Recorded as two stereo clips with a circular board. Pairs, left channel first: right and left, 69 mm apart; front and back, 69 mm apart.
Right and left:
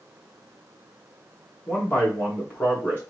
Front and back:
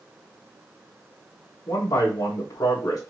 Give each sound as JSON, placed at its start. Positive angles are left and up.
{"t": 1.7, "sound": "a man speaking", "azimuth_deg": -30, "distance_m": 2.0}